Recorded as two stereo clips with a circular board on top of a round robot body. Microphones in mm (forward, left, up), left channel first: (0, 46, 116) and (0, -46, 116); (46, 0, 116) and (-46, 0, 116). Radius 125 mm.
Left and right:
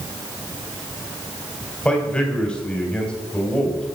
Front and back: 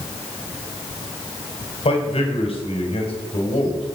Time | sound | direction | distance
1.9 | a man speaking | 10° left | 3 m